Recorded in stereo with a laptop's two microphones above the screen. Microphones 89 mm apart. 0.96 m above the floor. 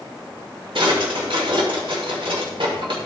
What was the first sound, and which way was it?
A drawer, 75° right (ahead or behind).